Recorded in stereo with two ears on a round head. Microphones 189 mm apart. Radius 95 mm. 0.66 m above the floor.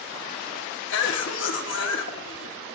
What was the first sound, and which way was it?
A cough, 60° left (ahead or behind).